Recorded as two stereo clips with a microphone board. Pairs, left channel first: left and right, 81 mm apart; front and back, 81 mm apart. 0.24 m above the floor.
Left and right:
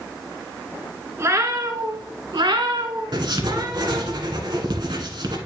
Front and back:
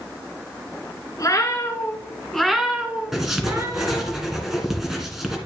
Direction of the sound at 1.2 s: 40° right.